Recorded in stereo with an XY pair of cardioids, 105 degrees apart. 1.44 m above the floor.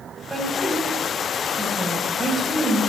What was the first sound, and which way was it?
A woman speaking, 20° right.